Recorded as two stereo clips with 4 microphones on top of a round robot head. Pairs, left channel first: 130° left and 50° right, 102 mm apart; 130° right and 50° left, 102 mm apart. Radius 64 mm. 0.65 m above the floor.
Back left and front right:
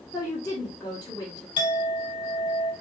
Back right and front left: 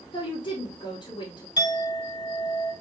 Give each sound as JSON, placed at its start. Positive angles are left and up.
{"t": 0.1, "sound": "a woman speaking", "azimuth_deg": -155, "distance_m": 1.8}
{"t": 1.6, "sound": "a clink", "azimuth_deg": 175, "distance_m": 1.8}